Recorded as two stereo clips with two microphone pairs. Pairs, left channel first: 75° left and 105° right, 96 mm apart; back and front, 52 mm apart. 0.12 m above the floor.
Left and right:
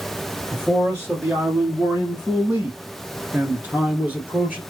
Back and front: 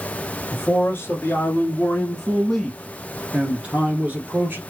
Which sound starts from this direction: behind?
A man speaking, at 0.5 s.